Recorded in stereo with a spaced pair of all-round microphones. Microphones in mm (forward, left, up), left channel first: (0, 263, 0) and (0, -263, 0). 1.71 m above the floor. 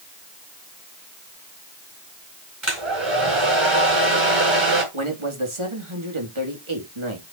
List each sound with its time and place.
2.6 s a hair dryer: 60° right (ahead or behind), 4.5 m
4.9 s a man speaking: 65° right (ahead or behind), 3 m